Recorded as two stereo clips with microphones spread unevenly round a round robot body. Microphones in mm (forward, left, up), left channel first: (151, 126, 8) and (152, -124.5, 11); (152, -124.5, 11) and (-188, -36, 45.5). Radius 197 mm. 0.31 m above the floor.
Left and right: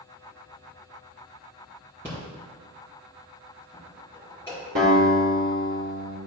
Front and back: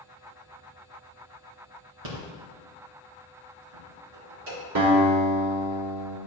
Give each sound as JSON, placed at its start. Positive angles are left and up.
{"t": 2.0, "sound": "a rattle", "azimuth_deg": 175, "distance_m": 3.5}
{"t": 4.8, "sound": "a guitar", "azimuth_deg": -155, "distance_m": 3.5}